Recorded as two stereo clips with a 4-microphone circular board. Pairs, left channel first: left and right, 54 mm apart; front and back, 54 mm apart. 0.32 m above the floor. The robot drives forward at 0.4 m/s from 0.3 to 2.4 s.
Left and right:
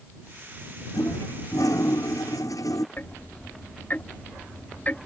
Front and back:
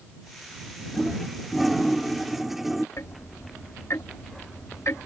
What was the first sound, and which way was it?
A toilet flushing, 90° left.